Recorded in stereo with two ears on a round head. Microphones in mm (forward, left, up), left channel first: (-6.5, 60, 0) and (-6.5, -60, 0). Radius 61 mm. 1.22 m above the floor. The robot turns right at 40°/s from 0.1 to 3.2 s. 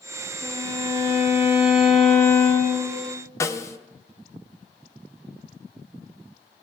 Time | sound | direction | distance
0.4 | a violin | 60° right | 2.5 m
3.4 | a snare drum | 20° left (ahead or behind) | 0.5 m